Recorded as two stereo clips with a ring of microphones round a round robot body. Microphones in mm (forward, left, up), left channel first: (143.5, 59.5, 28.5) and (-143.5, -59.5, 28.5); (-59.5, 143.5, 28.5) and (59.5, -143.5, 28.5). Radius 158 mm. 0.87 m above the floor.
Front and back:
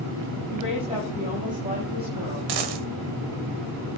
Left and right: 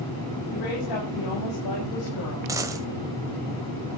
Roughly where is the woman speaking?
Behind left.